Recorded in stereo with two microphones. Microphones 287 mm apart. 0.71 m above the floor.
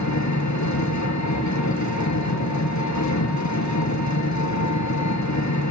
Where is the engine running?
80° left, 5.5 m.